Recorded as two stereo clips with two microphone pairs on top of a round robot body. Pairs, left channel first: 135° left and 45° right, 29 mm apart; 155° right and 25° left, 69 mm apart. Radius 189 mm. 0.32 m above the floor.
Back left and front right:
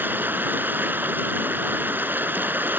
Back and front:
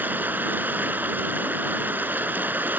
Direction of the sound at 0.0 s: 40° right.